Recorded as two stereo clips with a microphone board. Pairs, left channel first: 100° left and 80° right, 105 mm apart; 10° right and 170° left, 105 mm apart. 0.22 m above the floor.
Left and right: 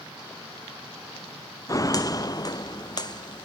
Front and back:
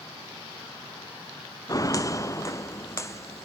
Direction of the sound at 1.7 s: 45° left.